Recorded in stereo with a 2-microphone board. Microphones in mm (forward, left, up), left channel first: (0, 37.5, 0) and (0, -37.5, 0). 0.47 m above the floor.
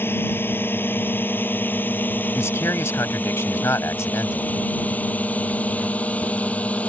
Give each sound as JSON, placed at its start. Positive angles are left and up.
{"t": 0.0, "sound": "a drone", "side_deg": 30}
{"t": 2.4, "sound": "a man speaking", "side_deg": 40}